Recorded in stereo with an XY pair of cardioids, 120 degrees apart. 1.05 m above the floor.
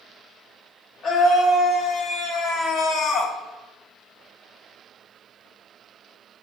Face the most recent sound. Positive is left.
turn(degrees=60)